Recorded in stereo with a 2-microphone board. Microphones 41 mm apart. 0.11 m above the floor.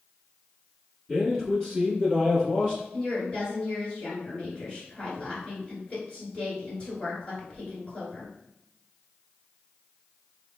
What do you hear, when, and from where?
1.1 s a man speaking: 20° left (ahead or behind), 1.3 m
2.9 s a woman speaking: 30° left (ahead or behind), 1.9 m